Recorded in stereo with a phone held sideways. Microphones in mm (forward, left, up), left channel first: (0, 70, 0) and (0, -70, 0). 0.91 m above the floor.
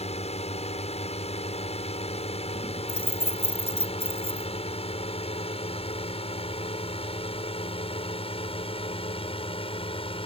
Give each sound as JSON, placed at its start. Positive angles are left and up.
{"t": 0.0, "sound": "a drone", "side_deg": 50}
{"t": 2.9, "sound": "keys jangling", "side_deg": 45}